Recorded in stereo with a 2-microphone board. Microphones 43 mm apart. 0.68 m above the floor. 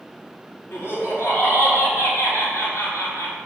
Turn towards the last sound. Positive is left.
turn(degrees=65)  # may be behind; listen again after turning